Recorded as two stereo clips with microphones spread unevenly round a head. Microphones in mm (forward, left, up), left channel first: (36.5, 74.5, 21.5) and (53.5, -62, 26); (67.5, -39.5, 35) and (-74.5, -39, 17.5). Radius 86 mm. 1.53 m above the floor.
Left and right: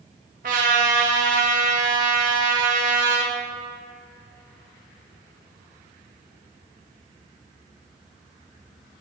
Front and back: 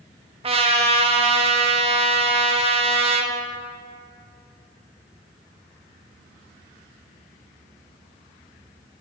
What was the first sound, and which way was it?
A trumpet, 130° right.